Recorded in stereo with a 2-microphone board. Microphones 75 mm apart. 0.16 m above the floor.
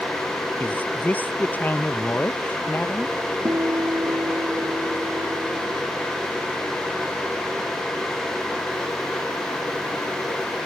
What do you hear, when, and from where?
0.6 s a man speaking: 25° left (ahead or behind)
3.5 s a guitar: 55° right (ahead or behind)